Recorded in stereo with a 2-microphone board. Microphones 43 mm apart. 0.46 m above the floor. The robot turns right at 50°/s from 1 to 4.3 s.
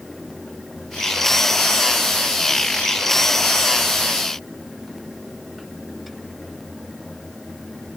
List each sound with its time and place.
Only background noise.